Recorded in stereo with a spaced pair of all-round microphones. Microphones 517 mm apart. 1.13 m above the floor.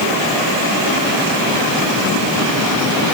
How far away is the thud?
No thud in this recording.